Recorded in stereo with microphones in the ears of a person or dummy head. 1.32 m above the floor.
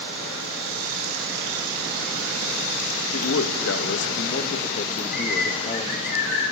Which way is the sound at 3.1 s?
75° left (ahead or behind).